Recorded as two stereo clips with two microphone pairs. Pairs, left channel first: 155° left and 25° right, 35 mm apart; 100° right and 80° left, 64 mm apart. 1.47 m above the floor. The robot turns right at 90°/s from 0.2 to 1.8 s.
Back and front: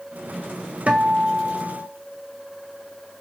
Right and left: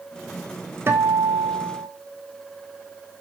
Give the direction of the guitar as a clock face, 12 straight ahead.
11 o'clock.